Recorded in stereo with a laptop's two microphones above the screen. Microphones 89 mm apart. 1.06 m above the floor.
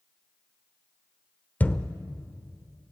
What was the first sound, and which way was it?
A thud, 20° left (ahead or behind).